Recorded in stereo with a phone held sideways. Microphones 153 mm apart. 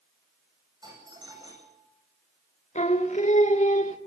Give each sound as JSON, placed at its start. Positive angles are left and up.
{"t": 0.8, "sound": "a doorbell", "side_deg": -25, "distance_m": 9.0}
{"t": 2.8, "sound": "singing", "side_deg": 50, "distance_m": 1.6}